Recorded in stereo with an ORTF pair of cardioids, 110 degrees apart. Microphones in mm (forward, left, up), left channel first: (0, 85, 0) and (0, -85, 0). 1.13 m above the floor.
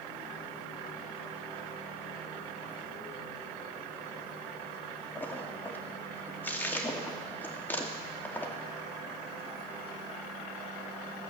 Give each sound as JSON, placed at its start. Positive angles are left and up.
{"t": 5.2, "sound": "a splash", "azimuth_deg": 10, "distance_m": 1.9}